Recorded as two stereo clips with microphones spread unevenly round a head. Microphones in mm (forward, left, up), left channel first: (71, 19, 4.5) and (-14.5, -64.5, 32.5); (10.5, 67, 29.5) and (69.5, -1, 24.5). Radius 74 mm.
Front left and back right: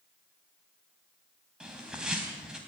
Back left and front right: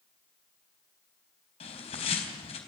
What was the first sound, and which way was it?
A bird, 140° left.